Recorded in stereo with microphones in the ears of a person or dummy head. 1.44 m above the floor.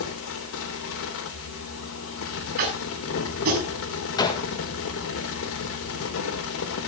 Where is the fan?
75° left (ahead or behind), 3 m.